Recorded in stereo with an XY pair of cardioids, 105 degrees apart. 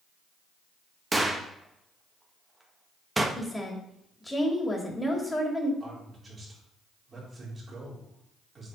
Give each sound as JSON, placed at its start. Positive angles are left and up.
{"t": 1.1, "sound": "a gunshot", "azimuth_deg": -15, "distance_m": 1.2}
{"t": 3.4, "sound": "a woman speaking", "azimuth_deg": 10, "distance_m": 2.5}
{"t": 5.8, "sound": "a man speaking", "azimuth_deg": -30, "distance_m": 4.0}